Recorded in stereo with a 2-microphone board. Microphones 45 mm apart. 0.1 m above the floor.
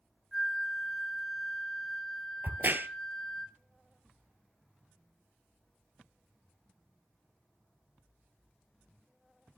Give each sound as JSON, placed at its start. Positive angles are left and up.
{"t": 0.3, "sound": "a flute", "side_deg": 0, "distance_m": 1.8}
{"t": 2.4, "sound": "a crack", "side_deg": -50, "distance_m": 0.8}